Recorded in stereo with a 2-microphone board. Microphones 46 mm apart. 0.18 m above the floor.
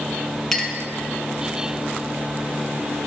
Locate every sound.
0.5 s a clink: 5° left (ahead or behind), 1.5 m